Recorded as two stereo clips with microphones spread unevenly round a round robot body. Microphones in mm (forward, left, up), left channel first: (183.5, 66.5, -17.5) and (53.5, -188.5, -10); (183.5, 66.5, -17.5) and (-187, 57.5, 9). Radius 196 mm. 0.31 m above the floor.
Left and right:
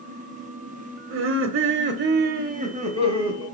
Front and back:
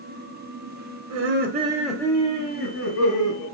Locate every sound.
1.1 s laughter: 140° right, 1.1 m; by 3.5 s 45° right, 2 m